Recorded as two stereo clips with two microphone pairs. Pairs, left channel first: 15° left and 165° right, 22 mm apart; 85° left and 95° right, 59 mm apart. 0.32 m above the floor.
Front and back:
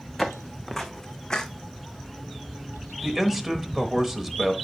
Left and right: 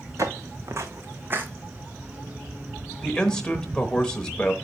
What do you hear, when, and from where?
0.2 s footsteps: 75° right, 1.2 m; by 1.5 s 40° right, 0.9 m
3.0 s a man speaking: 145° left, 1.0 m